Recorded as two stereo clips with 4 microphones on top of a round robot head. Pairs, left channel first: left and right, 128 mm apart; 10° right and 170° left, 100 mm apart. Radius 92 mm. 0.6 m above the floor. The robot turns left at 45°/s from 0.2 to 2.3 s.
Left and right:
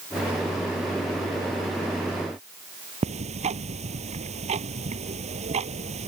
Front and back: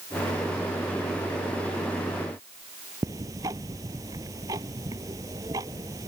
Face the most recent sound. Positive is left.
turn(degrees=-120)